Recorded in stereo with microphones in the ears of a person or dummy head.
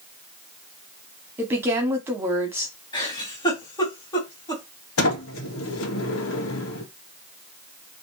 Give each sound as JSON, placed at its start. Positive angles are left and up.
{"t": 1.4, "sound": "a woman speaking", "side_deg": -10, "distance_m": 2.5}
{"t": 2.9, "sound": "a giggle", "side_deg": 25, "distance_m": 4.0}
{"t": 5.0, "sound": "a sliding door", "side_deg": 70, "distance_m": 1.8}